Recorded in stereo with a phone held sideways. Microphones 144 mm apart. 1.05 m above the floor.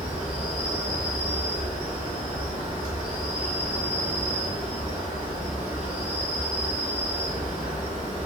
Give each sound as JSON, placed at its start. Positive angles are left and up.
{"t": 0.0, "sound": "an insect", "side_deg": 55, "distance_m": 1.4}